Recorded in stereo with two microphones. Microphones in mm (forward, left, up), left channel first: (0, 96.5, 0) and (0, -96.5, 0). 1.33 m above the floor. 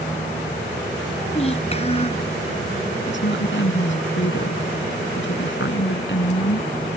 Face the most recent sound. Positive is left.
turn(degrees=75)  # may be behind; listen again after turning